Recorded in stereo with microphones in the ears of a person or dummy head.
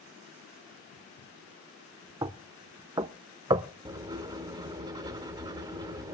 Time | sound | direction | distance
2.2 | knocking | 25° right (ahead or behind) | 0.5 m
3.9 | writing | 15° right (ahead or behind) | 1.1 m